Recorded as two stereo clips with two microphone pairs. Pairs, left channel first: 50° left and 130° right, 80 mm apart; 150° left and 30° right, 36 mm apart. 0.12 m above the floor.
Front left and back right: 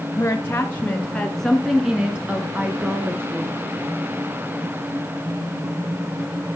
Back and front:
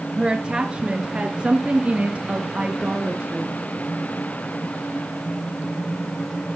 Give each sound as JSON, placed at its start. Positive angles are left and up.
{"t": 0.2, "sound": "a woman speaking", "azimuth_deg": 20, "distance_m": 1.5}